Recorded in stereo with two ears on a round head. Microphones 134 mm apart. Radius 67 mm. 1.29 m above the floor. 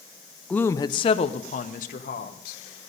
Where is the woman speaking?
5° left (ahead or behind), 0.6 m; by 2.6 s 65° left (ahead or behind), 1.6 m.